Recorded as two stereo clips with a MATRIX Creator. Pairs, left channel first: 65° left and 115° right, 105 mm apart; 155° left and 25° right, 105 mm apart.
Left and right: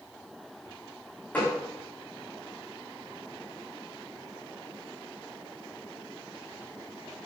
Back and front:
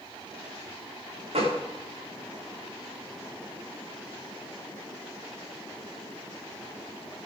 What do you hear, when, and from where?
1.3 s a gunshot: 5° right, 5 m